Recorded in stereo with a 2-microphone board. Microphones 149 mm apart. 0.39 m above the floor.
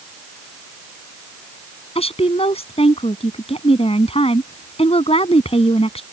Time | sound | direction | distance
1.9 | a woman speaking | 40° left (ahead or behind) | ?